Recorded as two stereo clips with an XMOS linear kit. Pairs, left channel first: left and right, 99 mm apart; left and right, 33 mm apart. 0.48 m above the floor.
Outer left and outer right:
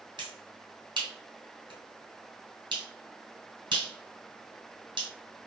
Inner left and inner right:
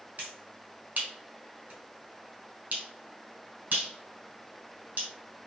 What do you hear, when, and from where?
0.2 s a finger snap: 50° right (ahead or behind), 3 m